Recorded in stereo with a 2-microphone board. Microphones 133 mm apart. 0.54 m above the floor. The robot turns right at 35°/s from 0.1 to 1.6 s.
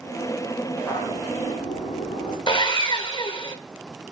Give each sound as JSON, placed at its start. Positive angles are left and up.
{"t": 0.7, "sound": "footsteps", "side_deg": 15, "distance_m": 9.5}
{"t": 2.5, "sound": "sawing", "side_deg": 40, "distance_m": 1.5}